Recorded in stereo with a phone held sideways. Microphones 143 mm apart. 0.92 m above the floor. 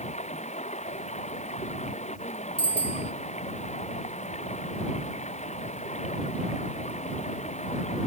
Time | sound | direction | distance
0.0 | running water | 55° left (ahead or behind) | ?
2.6 | a bicycle bell | 50° right (ahead or behind) | ?